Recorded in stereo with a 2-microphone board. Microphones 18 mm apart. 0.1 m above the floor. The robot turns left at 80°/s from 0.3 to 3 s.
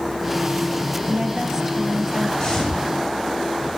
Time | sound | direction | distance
1.1 | a woman speaking | 110° right | 2.5 m
2.4 | footsteps | 45° left (ahead or behind) | 8 m